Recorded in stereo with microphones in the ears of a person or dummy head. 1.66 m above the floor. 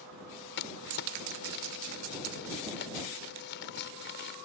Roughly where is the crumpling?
Left.